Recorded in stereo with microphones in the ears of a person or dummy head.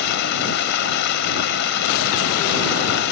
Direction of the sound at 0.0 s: 60° left (ahead or behind).